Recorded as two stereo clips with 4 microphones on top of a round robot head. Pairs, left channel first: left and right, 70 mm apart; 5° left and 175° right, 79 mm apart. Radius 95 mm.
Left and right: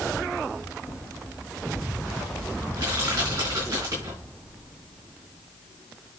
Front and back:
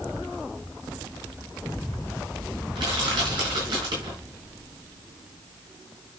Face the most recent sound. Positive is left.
turn(degrees=-145)